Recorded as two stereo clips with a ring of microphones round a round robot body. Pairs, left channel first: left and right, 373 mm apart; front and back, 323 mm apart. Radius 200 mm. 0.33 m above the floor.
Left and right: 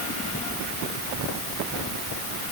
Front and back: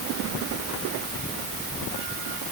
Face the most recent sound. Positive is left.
No sound to turn to.